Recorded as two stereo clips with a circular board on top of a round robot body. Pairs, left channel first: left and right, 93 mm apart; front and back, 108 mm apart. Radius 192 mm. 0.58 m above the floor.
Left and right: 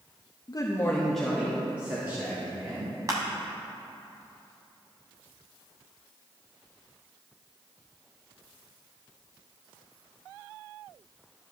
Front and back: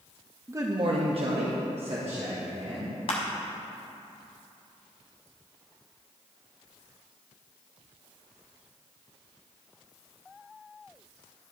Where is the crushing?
35° right, 0.8 m.